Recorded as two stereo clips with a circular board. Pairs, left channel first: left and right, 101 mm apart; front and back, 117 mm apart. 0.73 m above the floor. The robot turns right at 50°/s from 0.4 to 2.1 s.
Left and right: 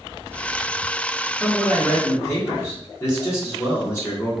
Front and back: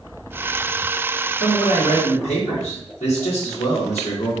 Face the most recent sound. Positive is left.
turn(degrees=25)